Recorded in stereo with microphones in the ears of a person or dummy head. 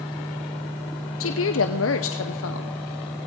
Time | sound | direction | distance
1.2 | a woman speaking | 65° left (ahead or behind) | 0.8 m